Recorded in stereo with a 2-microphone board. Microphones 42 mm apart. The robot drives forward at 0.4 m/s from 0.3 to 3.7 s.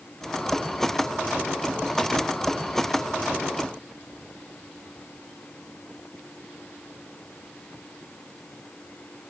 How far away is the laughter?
I don't hear laughter.